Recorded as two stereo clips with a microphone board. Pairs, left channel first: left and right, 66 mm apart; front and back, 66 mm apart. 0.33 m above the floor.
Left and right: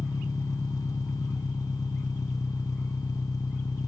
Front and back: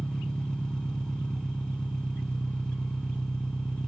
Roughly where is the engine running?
Left.